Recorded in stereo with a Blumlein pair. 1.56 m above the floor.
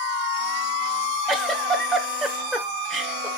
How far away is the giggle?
About 1.4 m.